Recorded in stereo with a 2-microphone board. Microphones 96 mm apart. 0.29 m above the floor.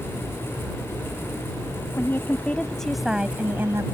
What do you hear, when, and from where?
2.0 s a woman speaking: 25° left (ahead or behind); by 3.9 s 30° right (ahead or behind)